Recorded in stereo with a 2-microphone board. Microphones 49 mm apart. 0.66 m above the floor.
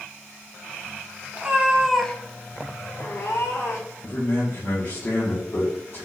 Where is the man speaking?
45° left (ahead or behind), 1.0 m.